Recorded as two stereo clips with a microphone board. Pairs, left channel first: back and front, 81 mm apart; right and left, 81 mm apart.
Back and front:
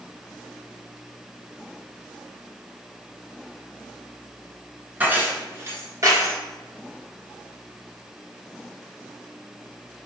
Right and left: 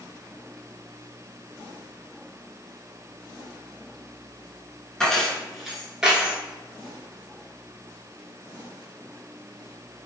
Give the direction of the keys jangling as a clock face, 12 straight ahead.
1 o'clock.